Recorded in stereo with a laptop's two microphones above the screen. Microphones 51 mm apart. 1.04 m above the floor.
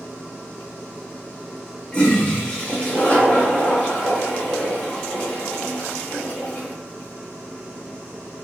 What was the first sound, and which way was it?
A toilet flushing, 20° left (ahead or behind).